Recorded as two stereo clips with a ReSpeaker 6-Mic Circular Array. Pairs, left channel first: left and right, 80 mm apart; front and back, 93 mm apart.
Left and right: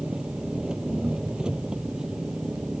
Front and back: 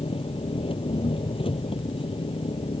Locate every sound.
0.0 s an engine running: 10° right